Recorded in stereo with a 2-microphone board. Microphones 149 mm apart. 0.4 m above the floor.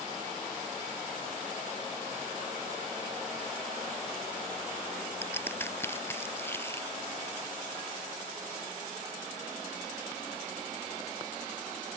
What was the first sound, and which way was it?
A crack, 15° left (ahead or behind).